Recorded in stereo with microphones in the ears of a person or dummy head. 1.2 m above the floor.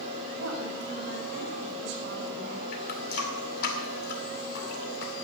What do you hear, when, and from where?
0.3 s a woman speaking: 55° right (ahead or behind), 5 m
2.7 s a running tap: 55° left (ahead or behind), 2.5 m